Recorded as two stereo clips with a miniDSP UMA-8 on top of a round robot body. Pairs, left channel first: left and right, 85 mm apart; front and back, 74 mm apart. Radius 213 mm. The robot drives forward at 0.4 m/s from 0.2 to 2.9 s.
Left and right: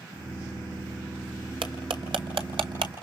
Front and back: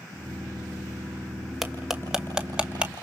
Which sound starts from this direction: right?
Cutlery clinking, at 1.6 s.